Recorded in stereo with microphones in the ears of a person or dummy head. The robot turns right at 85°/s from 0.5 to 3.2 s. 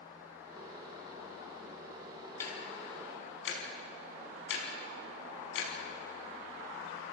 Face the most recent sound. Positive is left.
turn(degrees=75)  # may be behind; listen again after turning